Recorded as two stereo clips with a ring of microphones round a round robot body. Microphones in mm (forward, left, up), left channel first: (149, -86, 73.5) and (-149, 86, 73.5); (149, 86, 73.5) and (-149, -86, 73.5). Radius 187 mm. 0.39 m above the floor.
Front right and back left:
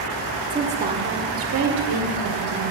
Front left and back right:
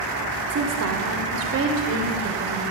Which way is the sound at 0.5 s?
140° right.